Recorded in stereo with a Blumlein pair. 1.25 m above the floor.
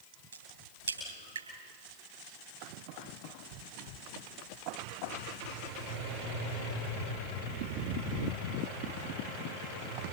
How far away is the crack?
About 10 m.